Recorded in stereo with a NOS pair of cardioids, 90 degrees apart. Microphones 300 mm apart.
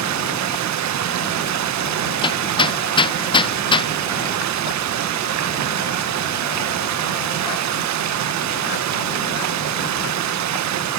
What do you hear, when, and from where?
0.0 s running water: 65° right, 1.5 m
2.2 s hammering: 15° left, 0.5 m